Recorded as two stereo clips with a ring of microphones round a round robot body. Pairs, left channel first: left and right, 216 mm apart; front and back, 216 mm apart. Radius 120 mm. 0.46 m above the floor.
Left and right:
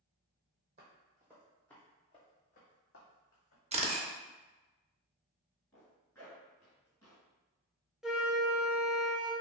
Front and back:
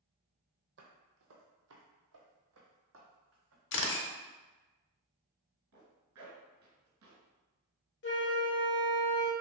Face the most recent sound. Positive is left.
turn(degrees=-5)